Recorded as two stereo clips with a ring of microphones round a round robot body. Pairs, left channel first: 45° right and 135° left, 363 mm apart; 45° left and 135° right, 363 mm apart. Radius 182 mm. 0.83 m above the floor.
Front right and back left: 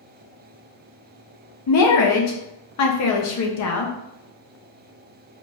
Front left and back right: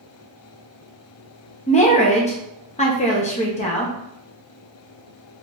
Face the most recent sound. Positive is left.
turn(degrees=-20)